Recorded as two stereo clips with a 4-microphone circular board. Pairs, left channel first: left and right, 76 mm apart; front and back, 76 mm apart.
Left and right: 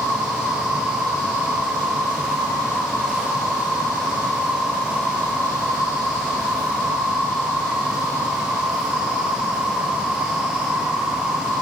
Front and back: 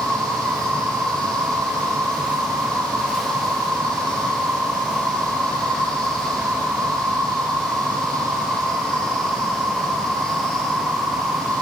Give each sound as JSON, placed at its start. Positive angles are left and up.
{"t": 0.0, "sound": "an insect", "azimuth_deg": 150, "distance_m": 7.5}